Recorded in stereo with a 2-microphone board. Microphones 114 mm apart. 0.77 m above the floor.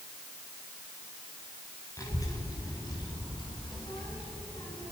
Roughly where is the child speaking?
Left.